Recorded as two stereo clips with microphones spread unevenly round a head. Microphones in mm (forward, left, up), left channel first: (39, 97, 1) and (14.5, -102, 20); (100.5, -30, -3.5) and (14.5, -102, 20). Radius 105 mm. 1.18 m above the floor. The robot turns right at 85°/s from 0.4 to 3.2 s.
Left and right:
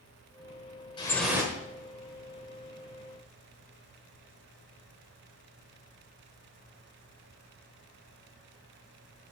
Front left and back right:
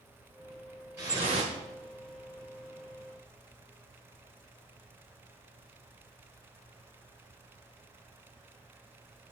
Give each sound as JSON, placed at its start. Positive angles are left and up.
{"t": 1.0, "sound": "dripping", "azimuth_deg": 155, "distance_m": 1.5}